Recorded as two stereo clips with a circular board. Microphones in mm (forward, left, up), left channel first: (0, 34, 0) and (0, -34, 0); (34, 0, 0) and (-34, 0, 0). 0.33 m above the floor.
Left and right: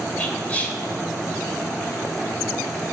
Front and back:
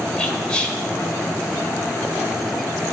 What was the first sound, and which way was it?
Whispering, 55° left.